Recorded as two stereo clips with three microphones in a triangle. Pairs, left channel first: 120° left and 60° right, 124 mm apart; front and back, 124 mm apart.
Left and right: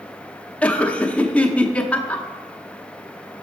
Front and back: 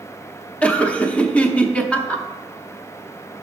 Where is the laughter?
60° left, 0.7 m.